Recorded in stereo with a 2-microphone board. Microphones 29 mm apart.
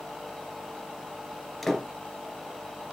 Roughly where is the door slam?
Centre.